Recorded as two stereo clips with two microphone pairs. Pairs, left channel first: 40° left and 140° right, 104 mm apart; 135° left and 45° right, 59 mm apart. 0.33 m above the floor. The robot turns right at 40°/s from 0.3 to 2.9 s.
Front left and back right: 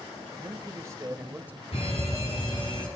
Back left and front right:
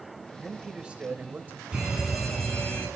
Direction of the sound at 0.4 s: 125° right.